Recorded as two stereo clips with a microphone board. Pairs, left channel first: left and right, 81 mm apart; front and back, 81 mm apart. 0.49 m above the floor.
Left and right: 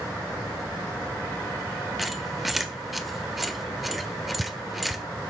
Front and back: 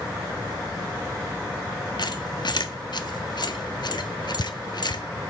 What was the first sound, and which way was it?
A squeak, straight ahead.